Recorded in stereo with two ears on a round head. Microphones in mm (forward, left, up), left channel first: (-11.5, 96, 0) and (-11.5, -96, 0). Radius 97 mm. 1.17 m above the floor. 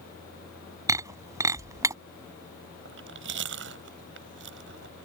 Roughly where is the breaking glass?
Centre.